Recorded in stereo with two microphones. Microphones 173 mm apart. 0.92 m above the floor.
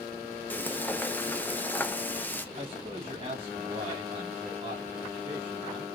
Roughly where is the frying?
Centre.